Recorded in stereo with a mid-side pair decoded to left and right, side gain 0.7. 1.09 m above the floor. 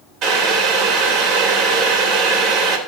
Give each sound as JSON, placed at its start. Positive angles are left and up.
{"t": 0.2, "sound": "boiling", "azimuth_deg": -50, "distance_m": 3.0}